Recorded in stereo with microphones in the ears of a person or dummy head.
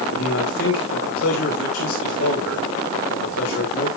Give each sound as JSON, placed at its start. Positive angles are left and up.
{"t": 0.1, "sound": "a man speaking", "side_deg": 90, "distance_m": 4.5}